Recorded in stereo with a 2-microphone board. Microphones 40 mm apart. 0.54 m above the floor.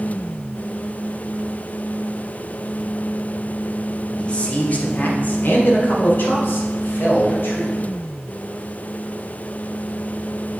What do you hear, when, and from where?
4.2 s a man speaking: 25° left (ahead or behind), 1.1 m; by 7.8 s 65° left (ahead or behind), 2.5 m